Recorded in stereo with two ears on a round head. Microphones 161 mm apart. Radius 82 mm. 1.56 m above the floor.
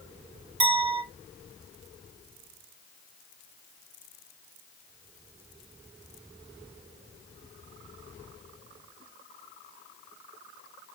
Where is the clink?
30° right (ahead or behind), 1.5 m.